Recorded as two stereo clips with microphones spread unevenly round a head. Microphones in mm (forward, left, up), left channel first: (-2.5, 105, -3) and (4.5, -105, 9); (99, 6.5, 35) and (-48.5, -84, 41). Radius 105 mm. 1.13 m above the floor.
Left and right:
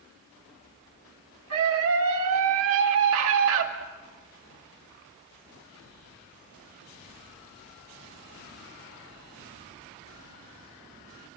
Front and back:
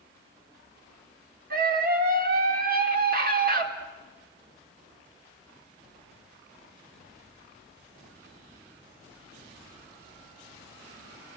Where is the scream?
115° right, 3.5 m.